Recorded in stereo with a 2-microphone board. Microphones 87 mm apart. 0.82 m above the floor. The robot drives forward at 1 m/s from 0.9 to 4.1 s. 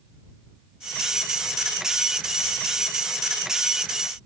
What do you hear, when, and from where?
Only background noise.